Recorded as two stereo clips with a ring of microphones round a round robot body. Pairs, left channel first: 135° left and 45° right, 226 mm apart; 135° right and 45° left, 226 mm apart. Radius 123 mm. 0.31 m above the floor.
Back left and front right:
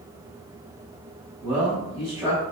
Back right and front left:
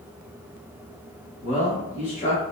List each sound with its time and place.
1.4 s a man speaking: 110° right, 1.2 m